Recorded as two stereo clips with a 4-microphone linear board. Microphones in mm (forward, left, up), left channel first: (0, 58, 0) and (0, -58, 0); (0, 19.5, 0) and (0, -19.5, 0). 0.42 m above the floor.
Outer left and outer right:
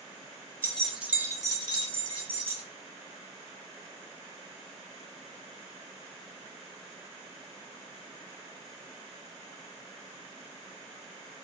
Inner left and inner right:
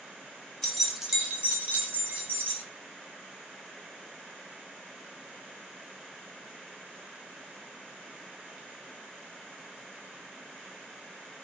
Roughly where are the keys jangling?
Centre.